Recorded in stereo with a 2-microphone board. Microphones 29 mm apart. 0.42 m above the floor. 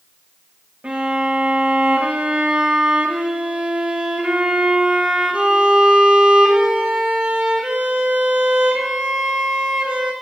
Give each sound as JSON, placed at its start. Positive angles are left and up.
{"t": 0.8, "sound": "a violin", "side_deg": -55, "distance_m": 4.0}